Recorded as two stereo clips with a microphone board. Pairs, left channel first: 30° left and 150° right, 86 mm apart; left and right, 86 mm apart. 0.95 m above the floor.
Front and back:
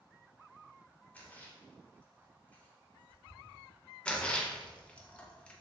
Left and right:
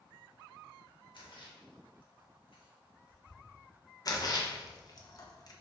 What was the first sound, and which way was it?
A splash, 100° left.